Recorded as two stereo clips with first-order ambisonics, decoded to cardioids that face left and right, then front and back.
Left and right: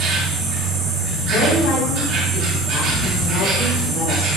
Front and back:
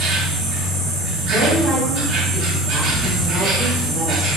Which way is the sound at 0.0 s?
135° right.